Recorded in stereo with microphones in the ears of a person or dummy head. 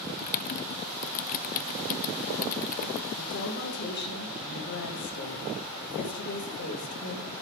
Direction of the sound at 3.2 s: 60° left (ahead or behind).